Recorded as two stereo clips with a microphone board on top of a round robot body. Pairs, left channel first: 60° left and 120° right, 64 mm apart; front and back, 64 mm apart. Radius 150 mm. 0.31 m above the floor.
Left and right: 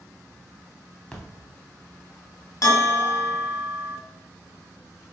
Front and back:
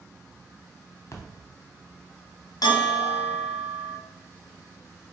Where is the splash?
10° right, 1.3 m.